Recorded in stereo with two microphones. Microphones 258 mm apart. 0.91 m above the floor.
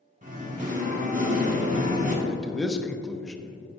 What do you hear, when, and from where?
0.2 s singing: 30° right (ahead or behind), 1.5 m
2.2 s a man speaking: centre (ahead or behind), 0.8 m